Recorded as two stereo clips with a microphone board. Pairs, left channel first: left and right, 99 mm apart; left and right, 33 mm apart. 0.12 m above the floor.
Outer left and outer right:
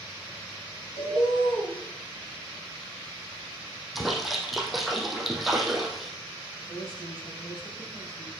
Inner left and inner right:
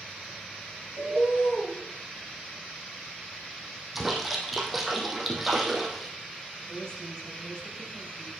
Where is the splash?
Centre (ahead or behind), 2.5 m.